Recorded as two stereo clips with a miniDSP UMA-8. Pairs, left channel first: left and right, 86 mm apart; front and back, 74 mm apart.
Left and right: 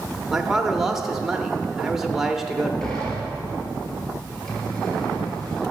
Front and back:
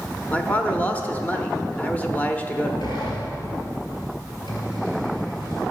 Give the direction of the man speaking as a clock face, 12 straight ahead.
12 o'clock.